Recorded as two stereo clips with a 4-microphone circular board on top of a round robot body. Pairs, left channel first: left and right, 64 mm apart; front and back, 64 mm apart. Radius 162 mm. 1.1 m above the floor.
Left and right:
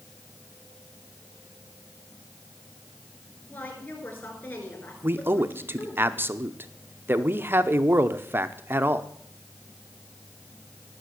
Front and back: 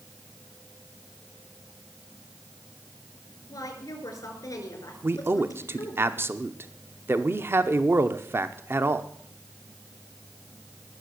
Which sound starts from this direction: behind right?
A man speaking, at 5.0 s.